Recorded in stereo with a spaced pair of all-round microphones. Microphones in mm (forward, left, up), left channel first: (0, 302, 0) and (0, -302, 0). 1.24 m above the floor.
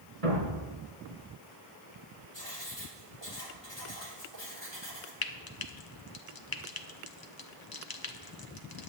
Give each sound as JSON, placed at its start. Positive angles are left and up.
{"t": 0.2, "sound": "a thud", "side_deg": -65, "distance_m": 3.0}
{"t": 2.3, "sound": "writing", "side_deg": 45, "distance_m": 2.5}
{"t": 5.2, "sound": "frying", "side_deg": 40, "distance_m": 0.7}